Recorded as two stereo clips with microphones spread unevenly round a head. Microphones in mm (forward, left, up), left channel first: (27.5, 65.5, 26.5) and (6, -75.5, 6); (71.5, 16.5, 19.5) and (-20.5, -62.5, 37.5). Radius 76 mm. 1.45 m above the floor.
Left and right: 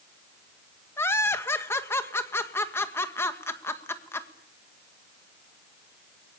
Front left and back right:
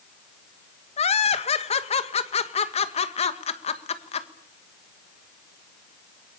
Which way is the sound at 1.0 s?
5° left.